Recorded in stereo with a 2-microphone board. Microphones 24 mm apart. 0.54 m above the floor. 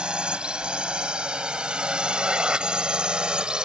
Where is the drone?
45° right (ahead or behind); by 3.6 s 40° right (ahead or behind).